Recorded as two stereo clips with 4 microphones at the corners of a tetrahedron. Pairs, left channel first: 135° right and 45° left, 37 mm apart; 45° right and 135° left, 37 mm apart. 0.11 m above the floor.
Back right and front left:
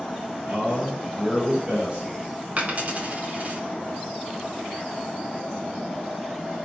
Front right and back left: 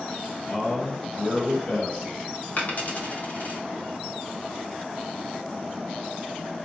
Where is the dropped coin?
5° right, 1.4 m.